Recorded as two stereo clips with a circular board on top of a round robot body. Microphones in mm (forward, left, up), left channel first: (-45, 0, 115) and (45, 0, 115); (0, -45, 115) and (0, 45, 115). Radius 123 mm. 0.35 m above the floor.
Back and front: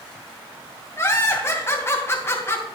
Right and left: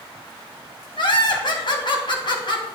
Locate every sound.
1.0 s laughter: 120° right, 2.5 m